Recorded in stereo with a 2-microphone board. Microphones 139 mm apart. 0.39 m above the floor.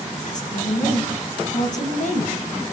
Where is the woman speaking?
65° left (ahead or behind), 3 m.